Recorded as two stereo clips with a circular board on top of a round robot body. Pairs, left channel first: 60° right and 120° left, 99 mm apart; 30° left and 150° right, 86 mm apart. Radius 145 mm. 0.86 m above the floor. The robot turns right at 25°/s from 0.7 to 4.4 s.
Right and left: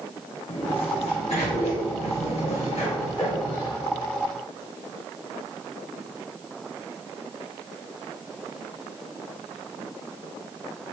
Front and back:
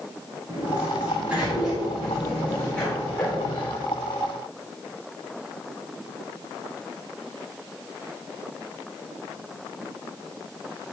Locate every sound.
0.5 s a sliding door: 90° right, 2.5 m; by 3.8 s 15° right, 2.5 m